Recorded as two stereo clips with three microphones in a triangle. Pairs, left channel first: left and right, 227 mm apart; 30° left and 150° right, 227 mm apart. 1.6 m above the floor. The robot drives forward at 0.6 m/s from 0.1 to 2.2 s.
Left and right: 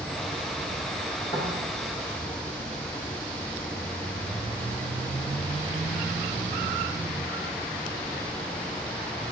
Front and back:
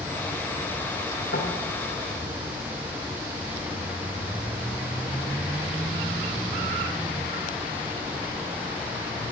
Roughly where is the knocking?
Ahead left.